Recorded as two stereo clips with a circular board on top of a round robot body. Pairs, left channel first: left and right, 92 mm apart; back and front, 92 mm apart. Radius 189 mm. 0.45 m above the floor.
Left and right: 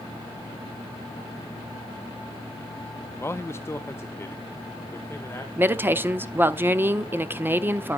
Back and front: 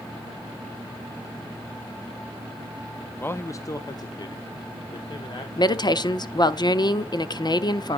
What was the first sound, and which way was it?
A man speaking, 130° left.